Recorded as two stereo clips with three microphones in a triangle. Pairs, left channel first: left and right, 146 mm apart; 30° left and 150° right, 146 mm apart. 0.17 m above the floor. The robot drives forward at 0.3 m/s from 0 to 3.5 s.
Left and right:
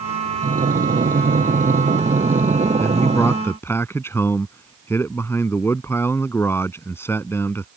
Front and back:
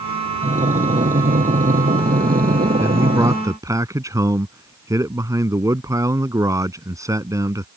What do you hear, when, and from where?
0.4 s breathing: 115° right; by 3.4 s 135° right
2.8 s a man speaking: 150° left; by 7.7 s 155° left